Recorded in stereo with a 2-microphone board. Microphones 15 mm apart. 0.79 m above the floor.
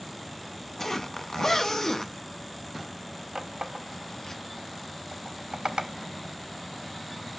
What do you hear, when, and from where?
0.8 s a zipper: 25° left (ahead or behind), 0.7 m
3.4 s a running tap: 65° right (ahead or behind), 0.9 m